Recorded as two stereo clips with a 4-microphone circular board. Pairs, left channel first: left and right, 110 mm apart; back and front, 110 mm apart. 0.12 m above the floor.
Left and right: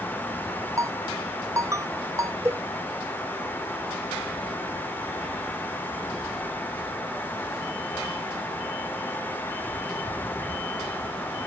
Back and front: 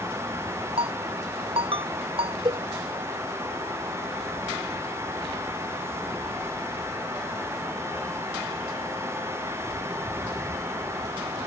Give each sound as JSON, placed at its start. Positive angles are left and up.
{"t": 0.8, "sound": "a ringtone", "azimuth_deg": -30}
{"t": 2.5, "sound": "a cowbell", "azimuth_deg": -25}